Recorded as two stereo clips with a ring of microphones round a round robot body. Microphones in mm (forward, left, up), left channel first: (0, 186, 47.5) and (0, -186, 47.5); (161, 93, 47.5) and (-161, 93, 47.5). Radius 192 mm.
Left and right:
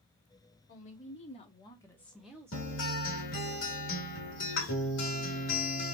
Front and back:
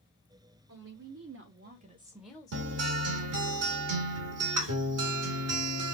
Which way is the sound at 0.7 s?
155° left.